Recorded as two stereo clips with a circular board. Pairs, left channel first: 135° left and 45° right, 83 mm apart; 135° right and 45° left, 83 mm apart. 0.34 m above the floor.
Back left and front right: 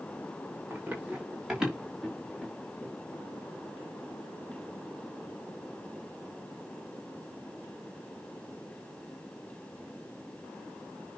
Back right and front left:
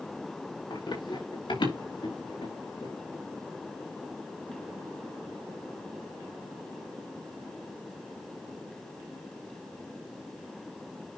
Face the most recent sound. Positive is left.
turn(degrees=-145)